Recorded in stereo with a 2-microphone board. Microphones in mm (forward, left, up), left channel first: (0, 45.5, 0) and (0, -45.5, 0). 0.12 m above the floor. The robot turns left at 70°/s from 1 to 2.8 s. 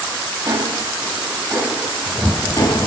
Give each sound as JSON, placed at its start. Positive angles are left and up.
{"t": 0.5, "sound": "ticking", "side_deg": -60, "distance_m": 4.0}